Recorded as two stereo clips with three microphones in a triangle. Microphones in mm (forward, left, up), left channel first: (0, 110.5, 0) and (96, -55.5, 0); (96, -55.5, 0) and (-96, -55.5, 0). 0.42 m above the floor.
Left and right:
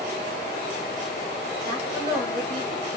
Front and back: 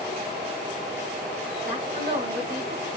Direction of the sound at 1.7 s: 175° right.